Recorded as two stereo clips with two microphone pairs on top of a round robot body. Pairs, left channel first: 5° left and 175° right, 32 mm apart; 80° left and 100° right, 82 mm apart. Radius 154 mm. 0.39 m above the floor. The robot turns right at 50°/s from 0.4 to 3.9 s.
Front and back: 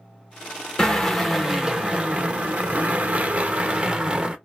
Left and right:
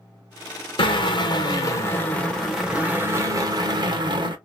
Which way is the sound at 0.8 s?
85° left.